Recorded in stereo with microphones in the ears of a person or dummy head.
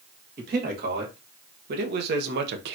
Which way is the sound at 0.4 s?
50° right (ahead or behind).